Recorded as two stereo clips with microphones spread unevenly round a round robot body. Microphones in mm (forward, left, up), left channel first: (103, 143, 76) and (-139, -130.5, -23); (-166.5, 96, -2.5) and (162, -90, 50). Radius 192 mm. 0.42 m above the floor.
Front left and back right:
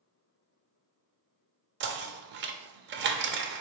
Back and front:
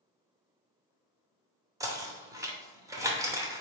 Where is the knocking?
115° right, 0.6 m.